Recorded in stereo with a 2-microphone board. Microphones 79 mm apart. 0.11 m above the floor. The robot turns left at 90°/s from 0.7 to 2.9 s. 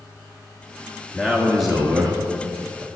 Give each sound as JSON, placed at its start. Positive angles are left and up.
{"t": 1.1, "sound": "a man speaking", "side_deg": 15, "distance_m": 1.4}